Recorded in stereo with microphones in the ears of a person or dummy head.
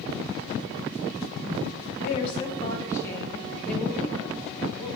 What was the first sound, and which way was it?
A woman speaking, 40° left (ahead or behind).